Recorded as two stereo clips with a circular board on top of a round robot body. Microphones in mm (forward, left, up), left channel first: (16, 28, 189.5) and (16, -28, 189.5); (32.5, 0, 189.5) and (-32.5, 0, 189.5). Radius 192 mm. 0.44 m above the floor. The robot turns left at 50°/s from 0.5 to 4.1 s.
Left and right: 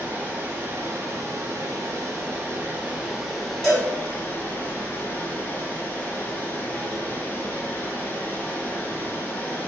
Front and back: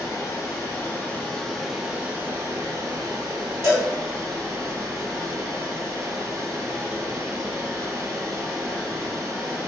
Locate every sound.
0.0 s running water: 35° right, 1.1 m; by 9.7 s 145° left, 1.1 m
3.6 s a cowbell: 175° left, 1.9 m; by 3.9 s 165° left, 1.9 m